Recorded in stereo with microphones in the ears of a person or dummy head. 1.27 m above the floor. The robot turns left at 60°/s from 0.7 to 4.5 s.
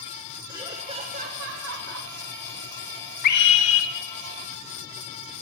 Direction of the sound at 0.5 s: 20° right.